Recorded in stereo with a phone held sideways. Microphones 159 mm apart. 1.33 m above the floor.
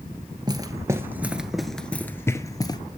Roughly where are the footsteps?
Right.